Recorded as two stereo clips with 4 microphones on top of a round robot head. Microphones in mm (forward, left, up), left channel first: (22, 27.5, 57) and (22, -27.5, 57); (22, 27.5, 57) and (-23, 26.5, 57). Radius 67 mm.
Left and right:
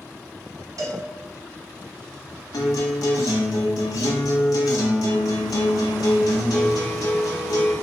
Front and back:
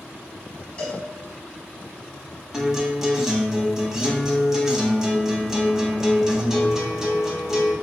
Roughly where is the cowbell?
Right.